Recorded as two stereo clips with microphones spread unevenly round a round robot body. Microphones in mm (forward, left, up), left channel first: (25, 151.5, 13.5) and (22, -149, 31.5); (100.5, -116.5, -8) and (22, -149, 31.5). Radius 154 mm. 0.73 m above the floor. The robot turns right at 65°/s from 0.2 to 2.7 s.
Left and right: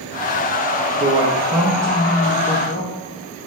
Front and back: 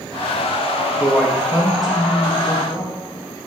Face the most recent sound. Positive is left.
turn(degrees=70)